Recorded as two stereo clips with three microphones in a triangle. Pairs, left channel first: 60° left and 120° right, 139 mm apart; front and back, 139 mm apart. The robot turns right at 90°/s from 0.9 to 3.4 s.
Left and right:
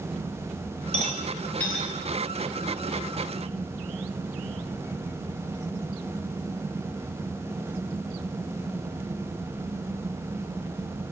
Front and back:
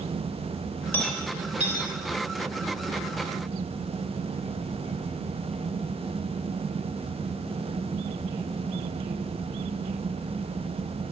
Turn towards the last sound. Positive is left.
turn(degrees=-60)